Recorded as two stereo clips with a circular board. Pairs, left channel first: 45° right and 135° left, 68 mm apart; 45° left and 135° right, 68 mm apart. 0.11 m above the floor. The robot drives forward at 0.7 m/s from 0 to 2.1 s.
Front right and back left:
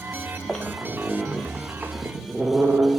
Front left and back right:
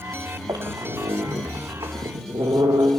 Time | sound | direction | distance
0.5 | a squeak | 130° right | 1.6 m